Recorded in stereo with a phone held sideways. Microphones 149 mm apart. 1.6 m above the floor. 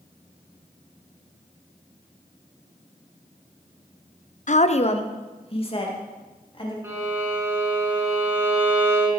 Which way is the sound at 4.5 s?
60° left (ahead or behind).